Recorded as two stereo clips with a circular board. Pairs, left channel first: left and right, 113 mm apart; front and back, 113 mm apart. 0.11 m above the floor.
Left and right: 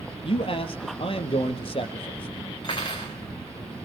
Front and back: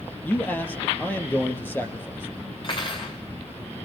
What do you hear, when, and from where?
0.2 s a man speaking: 70° left, 2.5 m
2.6 s cutlery clinking: 45° left, 6 m